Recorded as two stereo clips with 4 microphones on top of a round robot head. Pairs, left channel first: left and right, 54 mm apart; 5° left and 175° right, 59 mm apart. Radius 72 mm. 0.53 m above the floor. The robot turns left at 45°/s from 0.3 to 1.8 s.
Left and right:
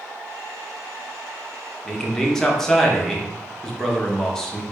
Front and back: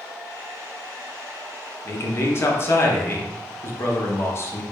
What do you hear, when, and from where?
1.9 s a man speaking: 10° left, 0.9 m